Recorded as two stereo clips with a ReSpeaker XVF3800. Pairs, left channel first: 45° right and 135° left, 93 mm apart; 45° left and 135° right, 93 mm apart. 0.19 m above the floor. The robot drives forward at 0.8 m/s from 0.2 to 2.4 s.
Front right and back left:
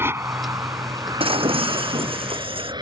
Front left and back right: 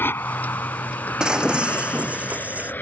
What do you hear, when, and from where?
0.0 s an aircraft: 95° left; by 2.8 s 110° left
1.2 s breaking glass: 140° left; by 2.7 s 150° left